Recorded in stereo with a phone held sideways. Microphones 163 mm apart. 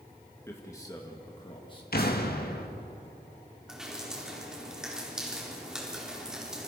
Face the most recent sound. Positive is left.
turn(degrees=-5)  # may be behind; listen again after turning